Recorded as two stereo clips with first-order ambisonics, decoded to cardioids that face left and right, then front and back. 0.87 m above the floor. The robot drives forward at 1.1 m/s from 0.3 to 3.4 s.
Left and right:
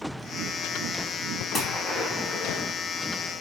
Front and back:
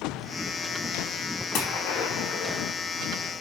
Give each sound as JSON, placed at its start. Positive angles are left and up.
{"t": 1.5, "sound": "a gunshot", "azimuth_deg": 10, "distance_m": 4.0}